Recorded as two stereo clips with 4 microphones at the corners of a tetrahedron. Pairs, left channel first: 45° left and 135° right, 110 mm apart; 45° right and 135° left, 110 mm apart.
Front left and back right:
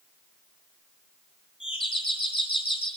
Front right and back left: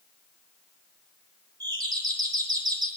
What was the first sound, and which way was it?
A doorbell, 80° left.